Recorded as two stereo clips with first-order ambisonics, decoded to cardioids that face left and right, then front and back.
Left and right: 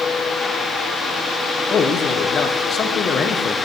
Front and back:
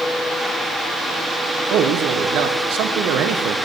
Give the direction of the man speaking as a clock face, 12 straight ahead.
7 o'clock.